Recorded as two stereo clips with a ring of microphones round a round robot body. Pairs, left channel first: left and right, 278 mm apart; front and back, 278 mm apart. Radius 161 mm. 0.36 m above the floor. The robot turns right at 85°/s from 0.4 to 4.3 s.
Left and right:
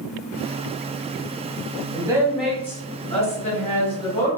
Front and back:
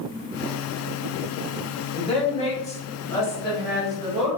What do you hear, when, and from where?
1.9 s a woman speaking: 45° right, 1.1 m; by 4.4 s 155° left, 1.1 m